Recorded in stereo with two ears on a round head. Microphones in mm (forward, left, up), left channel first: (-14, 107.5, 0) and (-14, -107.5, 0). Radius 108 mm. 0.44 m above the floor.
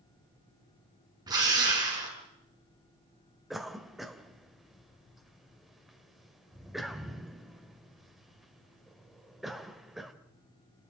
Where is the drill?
15° right (ahead or behind), 5.5 m.